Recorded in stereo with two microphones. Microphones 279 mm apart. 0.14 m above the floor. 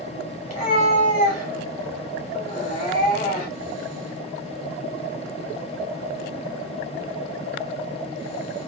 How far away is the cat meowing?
About 1.4 m.